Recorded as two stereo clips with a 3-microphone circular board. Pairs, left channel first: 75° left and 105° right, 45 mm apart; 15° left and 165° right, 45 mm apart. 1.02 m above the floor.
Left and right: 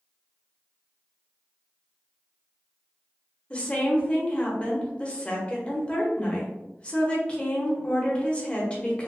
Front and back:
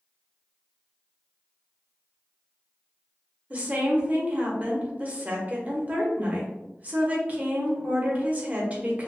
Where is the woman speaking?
140° left, 0.9 m.